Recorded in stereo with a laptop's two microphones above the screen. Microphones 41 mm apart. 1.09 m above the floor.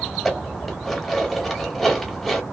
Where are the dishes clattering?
Centre (ahead or behind), 1.1 m.